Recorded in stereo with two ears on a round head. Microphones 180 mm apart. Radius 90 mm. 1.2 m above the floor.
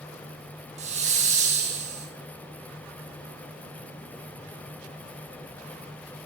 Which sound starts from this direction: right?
A hiss, at 0.8 s.